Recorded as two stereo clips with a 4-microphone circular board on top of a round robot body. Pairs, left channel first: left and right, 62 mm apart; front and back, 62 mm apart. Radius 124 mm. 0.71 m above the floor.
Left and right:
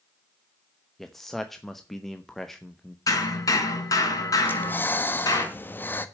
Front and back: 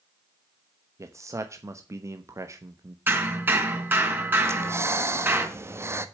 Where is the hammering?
120° left, 3.5 m.